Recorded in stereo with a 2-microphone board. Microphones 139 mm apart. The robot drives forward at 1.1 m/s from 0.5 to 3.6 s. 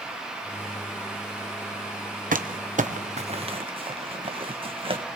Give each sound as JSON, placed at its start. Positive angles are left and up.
{"t": 2.3, "sound": "crumpling", "side_deg": -75, "distance_m": 1.2}